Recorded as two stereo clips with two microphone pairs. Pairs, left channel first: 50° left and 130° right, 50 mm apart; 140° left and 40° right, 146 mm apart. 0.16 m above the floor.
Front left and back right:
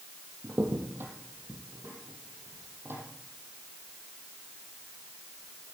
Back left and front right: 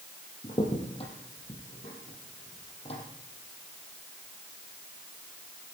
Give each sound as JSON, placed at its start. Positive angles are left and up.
{"t": 0.4, "sound": "a crack", "azimuth_deg": -170, "distance_m": 4.0}